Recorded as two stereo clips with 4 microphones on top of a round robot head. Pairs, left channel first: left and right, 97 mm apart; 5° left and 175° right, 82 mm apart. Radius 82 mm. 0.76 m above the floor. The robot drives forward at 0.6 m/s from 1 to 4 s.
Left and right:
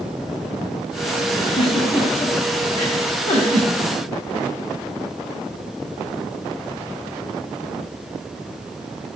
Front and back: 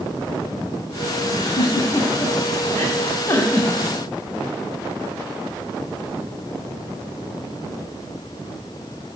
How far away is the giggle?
About 4 m.